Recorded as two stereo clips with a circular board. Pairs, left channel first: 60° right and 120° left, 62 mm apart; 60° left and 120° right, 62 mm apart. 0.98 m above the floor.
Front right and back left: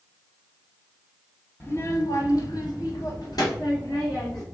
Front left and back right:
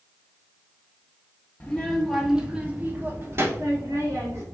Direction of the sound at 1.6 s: 10° right.